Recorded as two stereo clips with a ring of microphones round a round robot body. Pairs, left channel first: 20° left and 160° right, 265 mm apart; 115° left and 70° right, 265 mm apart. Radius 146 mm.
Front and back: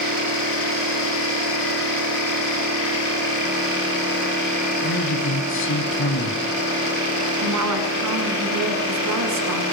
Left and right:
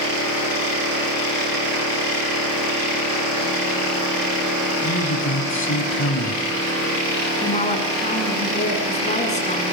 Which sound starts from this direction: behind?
A woman speaking, at 7.4 s.